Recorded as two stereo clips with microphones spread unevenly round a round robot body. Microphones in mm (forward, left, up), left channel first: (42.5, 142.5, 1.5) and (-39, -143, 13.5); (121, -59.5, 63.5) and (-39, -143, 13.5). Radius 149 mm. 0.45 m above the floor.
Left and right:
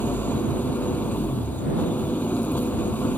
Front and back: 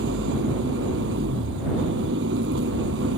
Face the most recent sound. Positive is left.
turn(degrees=160)